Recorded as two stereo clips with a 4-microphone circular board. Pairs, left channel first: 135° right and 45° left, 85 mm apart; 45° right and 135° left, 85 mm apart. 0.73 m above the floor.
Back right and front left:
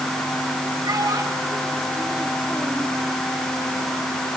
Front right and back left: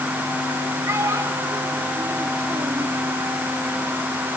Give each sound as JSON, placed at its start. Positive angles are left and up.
{"t": 0.8, "sound": "a child speaking", "azimuth_deg": 85, "distance_m": 3.0}